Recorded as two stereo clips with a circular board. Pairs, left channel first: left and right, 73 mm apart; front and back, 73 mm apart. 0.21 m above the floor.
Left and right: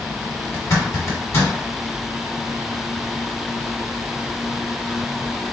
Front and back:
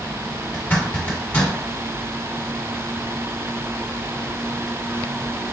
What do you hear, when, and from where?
0.5 s a zipper: 60° left, 1.4 m